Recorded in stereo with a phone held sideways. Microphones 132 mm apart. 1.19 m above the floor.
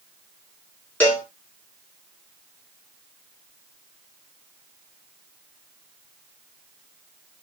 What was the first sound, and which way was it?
A cowbell, 10° left (ahead or behind).